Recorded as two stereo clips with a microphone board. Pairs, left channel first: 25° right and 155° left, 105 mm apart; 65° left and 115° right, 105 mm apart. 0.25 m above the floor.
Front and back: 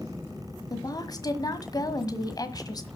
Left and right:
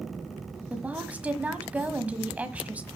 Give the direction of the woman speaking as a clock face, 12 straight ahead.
1 o'clock.